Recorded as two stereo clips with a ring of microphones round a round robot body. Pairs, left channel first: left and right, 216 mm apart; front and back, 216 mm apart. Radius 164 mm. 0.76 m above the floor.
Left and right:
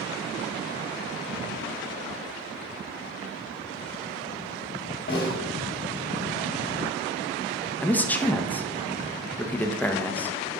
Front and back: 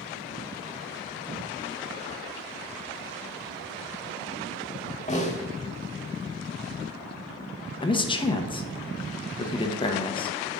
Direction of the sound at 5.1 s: 55° left.